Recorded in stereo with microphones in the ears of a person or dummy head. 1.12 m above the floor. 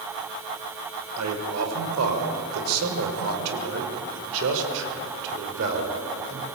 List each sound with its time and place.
1.2 s a man speaking: 85° right, 5 m; by 6.5 s 55° right (ahead or behind), 5 m